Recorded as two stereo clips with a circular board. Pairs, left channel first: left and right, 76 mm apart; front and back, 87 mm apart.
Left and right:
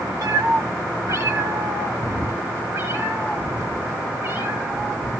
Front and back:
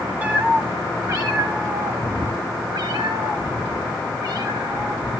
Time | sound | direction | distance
0.2 | a cat meowing | 110° right | 1.3 m